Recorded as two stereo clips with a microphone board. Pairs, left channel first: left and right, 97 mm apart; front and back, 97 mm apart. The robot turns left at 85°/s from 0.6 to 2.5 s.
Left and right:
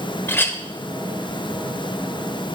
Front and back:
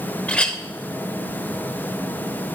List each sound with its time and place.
0.3 s a clink: 65° left, 0.9 m